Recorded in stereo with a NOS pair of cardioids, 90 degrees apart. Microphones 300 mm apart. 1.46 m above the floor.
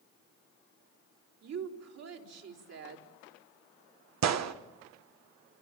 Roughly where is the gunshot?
Ahead right.